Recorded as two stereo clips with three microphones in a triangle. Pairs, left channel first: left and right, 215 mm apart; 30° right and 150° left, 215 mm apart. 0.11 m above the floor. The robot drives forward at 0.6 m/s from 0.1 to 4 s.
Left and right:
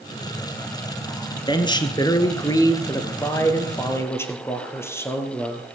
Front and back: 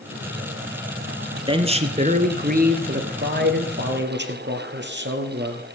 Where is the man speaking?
125° left, 1.2 m; by 5.7 s 165° left, 2 m.